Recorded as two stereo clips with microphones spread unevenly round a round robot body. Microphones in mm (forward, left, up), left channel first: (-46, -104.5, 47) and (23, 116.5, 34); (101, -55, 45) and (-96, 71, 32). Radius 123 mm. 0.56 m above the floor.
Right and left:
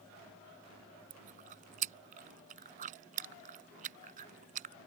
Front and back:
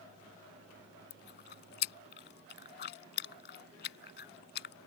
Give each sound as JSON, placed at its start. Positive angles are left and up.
{"t": 1.1, "sound": "chewing", "azimuth_deg": 15}